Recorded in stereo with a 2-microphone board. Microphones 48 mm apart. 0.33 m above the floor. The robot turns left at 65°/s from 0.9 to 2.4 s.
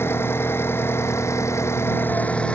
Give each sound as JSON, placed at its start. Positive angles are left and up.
{"t": 0.0, "sound": "an engine running", "azimuth_deg": 125}